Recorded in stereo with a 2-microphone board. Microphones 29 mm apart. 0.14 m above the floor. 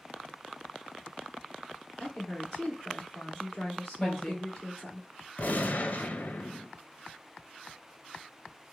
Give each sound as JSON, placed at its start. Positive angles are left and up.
{"t": 2.0, "sound": "a woman speaking", "side_deg": 10, "distance_m": 2.0}
{"t": 4.0, "sound": "a woman speaking", "side_deg": 20, "distance_m": 3.0}
{"t": 5.4, "sound": "a gunshot", "side_deg": 60, "distance_m": 0.6}